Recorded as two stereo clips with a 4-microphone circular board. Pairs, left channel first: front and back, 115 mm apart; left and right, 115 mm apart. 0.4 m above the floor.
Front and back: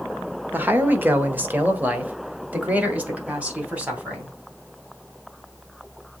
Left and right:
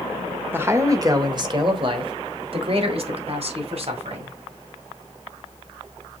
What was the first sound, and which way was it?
A man speaking, 130° right.